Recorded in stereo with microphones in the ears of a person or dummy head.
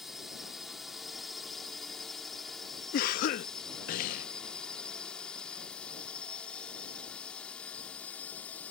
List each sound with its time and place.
0.0 s a drone: centre (ahead or behind); by 8.7 s 10° left (ahead or behind)
2.9 s a cough: 50° left (ahead or behind)